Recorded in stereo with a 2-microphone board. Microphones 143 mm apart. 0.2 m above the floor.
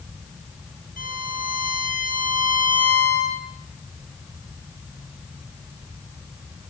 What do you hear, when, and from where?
1.0 s a violin: 75° left (ahead or behind), 3.5 m